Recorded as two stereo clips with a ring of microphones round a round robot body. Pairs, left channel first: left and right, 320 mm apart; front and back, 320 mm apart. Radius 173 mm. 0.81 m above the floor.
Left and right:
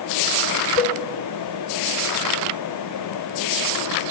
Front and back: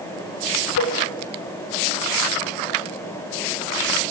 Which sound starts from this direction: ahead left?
A cowbell, at 0.8 s.